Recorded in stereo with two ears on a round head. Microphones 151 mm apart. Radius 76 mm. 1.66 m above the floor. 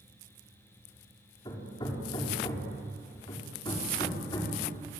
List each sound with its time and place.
1.4 s hammering: 30° left (ahead or behind), 4.5 m